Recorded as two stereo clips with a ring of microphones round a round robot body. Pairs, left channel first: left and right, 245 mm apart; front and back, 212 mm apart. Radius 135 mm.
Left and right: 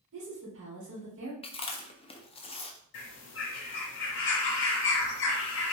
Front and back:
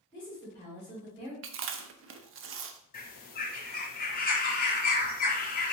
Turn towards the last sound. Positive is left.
turn(degrees=45)